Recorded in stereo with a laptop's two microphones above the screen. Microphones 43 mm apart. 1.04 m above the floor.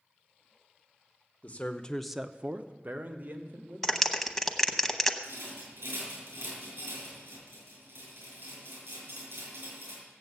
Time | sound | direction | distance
1.4 | a man speaking | 35° left (ahead or behind) | 0.9 m
3.8 | a clap | 5° left (ahead or behind) | 0.8 m
5.2 | a rattle | 60° right (ahead or behind) | 7.5 m